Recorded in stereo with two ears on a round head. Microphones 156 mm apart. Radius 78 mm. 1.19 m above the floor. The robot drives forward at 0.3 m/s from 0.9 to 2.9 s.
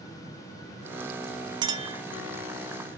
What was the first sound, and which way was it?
A clink, 25° right (ahead or behind).